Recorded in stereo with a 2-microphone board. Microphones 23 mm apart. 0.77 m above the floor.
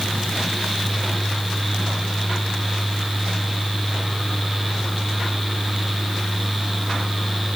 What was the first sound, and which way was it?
Only background noise.